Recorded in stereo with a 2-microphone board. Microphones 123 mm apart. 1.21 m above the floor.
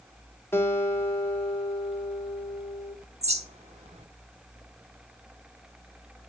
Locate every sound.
0.5 s a guitar: 20° left (ahead or behind), 2 m
3.2 s a bird: 60° right (ahead or behind), 1.4 m